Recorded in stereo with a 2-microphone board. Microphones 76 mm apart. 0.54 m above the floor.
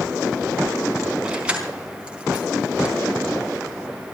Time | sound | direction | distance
1.2 | keys jangling | 15° right (ahead or behind) | 4 m